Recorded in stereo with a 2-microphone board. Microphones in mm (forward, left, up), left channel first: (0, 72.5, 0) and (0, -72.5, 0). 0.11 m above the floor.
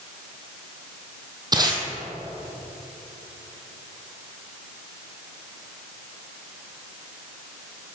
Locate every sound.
1.5 s tape being pulled: 30° right (ahead or behind), 1.2 m